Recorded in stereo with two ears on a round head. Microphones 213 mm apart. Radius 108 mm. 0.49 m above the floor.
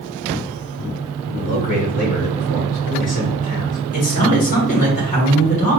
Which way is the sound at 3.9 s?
35° left (ahead or behind).